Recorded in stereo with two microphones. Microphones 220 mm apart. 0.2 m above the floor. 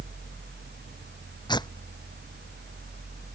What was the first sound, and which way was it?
Tearing paper, 20° left (ahead or behind).